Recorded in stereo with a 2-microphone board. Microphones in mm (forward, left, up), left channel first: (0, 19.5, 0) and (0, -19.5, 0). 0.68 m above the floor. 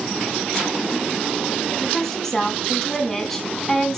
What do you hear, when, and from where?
1.8 s a woman speaking: 10° left (ahead or behind), 5 m